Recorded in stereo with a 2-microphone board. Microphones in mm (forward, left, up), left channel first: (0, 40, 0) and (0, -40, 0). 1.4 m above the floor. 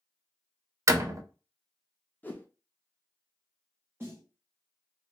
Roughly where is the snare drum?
Right.